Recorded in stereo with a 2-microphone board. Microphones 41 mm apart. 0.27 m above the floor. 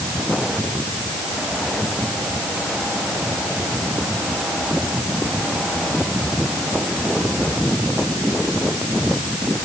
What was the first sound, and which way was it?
Only background noise.